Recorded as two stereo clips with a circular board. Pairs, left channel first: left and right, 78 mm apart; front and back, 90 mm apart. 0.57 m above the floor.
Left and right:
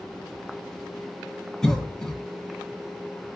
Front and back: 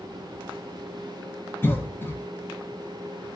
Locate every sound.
1.6 s a cough: 20° left, 0.8 m